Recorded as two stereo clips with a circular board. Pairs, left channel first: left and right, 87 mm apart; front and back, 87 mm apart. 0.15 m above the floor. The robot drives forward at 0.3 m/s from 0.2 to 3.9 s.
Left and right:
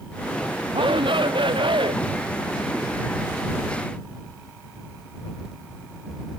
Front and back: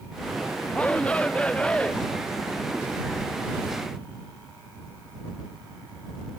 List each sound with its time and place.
0.7 s a shout: 75° right; by 1.9 s 80° right